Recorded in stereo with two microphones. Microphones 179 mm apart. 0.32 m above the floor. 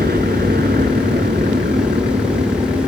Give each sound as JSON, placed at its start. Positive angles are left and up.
{"t": 0.0, "sound": "a helicopter", "side_deg": -60}